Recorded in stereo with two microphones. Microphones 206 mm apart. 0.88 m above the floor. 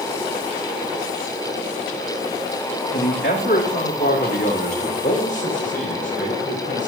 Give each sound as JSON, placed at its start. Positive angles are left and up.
{"t": 2.9, "sound": "a man speaking", "side_deg": 60, "distance_m": 1.8}